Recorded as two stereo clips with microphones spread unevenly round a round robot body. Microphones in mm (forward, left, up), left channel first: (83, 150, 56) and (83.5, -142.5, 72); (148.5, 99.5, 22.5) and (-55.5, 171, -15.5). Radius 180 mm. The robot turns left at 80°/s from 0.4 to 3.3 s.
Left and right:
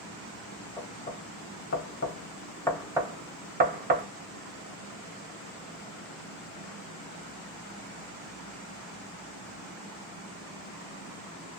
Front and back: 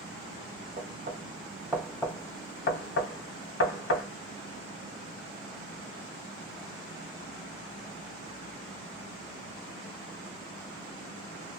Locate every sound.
0.8 s knocking: 165° left, 0.8 m; by 4.0 s 35° right, 0.8 m